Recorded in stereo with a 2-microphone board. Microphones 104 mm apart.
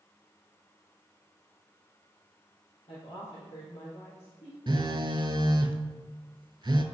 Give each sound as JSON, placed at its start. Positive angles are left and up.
{"t": 2.9, "sound": "a woman speaking", "side_deg": 65, "distance_m": 2.5}
{"t": 4.7, "sound": "a phone buzzing", "side_deg": -50, "distance_m": 0.6}